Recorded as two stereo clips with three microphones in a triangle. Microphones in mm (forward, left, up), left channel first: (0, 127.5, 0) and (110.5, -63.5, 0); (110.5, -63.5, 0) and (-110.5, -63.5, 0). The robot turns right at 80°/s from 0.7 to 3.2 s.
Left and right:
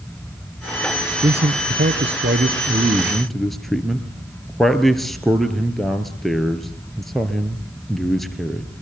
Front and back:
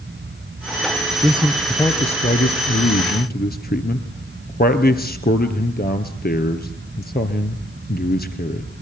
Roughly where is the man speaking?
Behind right.